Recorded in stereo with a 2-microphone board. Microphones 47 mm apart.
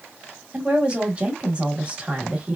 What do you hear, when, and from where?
0.5 s a woman speaking: 25° right (ahead or behind), 1.1 m